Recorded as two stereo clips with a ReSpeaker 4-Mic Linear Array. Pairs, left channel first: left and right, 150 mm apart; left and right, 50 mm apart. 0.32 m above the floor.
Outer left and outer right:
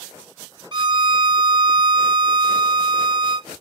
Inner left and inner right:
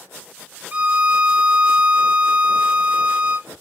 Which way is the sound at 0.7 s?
30° right (ahead or behind).